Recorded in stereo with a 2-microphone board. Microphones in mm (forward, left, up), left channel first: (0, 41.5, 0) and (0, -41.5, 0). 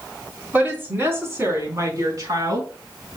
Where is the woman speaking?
20° right (ahead or behind), 3.5 m; by 3.2 s 55° right (ahead or behind), 4.5 m.